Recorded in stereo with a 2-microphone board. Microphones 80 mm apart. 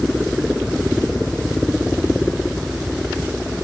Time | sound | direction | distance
0.0 | a helicopter | 5° right (ahead or behind) | ?